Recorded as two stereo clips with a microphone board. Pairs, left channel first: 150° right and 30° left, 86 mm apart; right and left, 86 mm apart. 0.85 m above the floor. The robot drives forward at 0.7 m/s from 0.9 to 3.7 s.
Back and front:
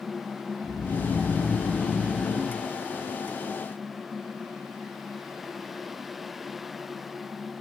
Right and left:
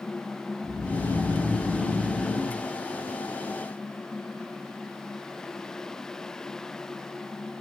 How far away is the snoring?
About 5.5 m.